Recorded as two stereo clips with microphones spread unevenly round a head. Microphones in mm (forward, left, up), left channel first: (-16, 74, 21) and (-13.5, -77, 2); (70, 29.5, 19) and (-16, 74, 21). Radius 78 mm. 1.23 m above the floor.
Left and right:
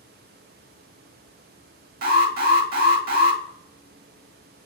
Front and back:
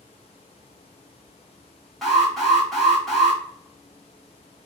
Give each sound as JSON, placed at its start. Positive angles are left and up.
{"t": 2.0, "sound": "an alarm", "azimuth_deg": -115, "distance_m": 1.2}